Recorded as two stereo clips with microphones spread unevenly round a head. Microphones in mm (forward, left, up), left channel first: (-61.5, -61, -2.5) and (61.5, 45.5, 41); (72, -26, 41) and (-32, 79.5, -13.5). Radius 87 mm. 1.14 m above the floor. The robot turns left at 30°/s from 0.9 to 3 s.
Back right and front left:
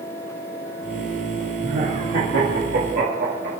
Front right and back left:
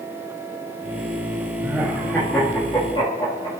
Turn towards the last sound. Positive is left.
turn(degrees=15)